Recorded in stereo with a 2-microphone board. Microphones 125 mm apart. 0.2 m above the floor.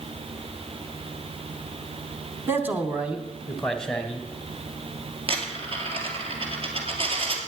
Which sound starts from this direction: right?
A dropped coin, at 5.3 s.